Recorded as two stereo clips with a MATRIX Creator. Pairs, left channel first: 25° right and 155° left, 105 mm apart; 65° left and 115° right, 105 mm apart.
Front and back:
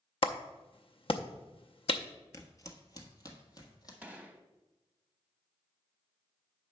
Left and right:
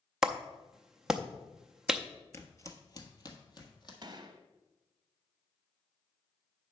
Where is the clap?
30° right, 0.5 m.